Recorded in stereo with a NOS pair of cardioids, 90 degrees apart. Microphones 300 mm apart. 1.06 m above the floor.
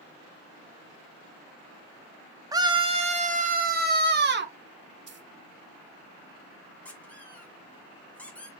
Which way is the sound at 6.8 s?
5° left.